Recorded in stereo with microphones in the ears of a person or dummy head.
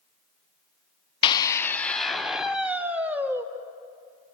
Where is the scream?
30° left (ahead or behind), 0.6 m; by 3.5 s 10° right (ahead or behind), 1.7 m.